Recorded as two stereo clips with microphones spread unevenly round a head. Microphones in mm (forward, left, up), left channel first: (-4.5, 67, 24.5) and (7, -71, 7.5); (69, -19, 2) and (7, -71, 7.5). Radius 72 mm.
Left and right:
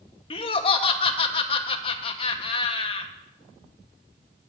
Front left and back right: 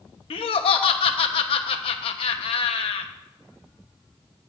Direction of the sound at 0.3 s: 40° left.